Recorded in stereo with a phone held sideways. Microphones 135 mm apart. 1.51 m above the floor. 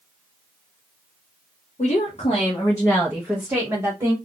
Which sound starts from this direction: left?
A woman speaking, at 1.8 s.